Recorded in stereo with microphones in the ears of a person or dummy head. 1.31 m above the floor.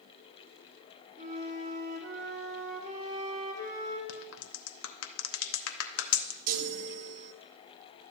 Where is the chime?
50° right (ahead or behind), 0.6 m.